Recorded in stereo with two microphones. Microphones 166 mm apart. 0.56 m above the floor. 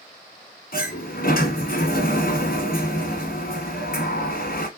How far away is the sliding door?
About 1.2 m.